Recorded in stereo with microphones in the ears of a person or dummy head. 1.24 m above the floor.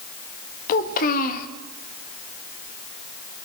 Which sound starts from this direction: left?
A child speaking, at 0.7 s.